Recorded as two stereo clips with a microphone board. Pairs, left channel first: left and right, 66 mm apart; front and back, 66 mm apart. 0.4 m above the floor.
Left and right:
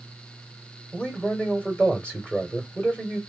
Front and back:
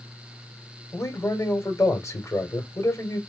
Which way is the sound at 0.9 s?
20° left.